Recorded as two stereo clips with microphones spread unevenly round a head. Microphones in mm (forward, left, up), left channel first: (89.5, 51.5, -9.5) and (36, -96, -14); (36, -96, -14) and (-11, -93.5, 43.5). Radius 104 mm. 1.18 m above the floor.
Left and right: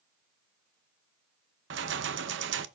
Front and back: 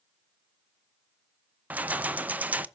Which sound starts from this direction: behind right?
Keys jangling, at 1.7 s.